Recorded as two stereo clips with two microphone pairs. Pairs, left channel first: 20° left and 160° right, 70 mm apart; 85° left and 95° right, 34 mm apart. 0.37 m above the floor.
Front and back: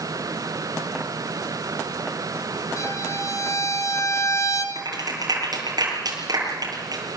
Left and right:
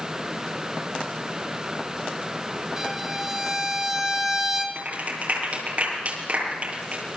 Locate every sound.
2.8 s a violin: 20° right, 3 m
4.8 s a clap: 140° right, 7.5 m